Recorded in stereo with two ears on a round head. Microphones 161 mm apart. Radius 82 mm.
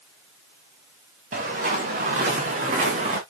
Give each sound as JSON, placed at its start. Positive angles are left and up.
{"t": 1.3, "sound": "footsteps", "side_deg": -45, "distance_m": 5.5}